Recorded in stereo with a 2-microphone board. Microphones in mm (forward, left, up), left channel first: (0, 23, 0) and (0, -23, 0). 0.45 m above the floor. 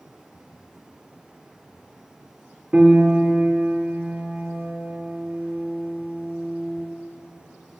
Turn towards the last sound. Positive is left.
turn(degrees=-25)  # may be behind; listen again after turning